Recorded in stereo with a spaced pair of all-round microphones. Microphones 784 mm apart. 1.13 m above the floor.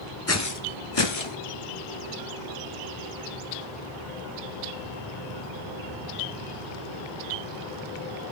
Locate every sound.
0.3 s footsteps: 20° left (ahead or behind), 1.1 m; by 1.4 s 40° left (ahead or behind), 1.4 m